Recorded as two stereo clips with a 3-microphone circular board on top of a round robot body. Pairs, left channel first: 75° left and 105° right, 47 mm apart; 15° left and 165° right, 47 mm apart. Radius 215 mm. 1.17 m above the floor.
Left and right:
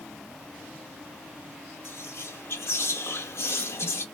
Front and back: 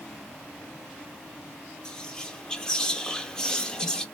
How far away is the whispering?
About 0.9 m.